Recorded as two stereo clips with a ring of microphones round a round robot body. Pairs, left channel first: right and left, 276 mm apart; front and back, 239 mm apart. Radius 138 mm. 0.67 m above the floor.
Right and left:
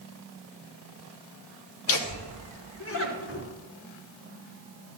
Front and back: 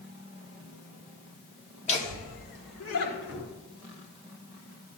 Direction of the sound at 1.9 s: 65° right.